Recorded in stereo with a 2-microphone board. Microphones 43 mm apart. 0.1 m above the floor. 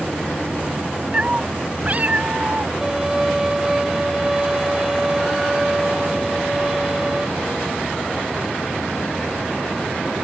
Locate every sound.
1.1 s a cat meowing: 25° right (ahead or behind); by 2.7 s 35° right (ahead or behind)
2.8 s a violin: 15° right (ahead or behind)